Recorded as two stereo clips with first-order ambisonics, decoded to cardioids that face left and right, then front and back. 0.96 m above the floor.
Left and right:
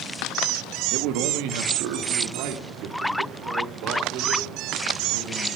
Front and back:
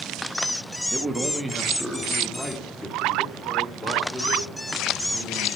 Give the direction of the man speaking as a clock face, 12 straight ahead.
4 o'clock.